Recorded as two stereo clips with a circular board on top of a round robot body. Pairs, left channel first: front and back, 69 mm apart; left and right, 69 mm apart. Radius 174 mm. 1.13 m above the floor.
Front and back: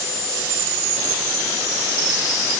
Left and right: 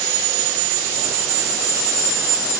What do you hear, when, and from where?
Only background noise.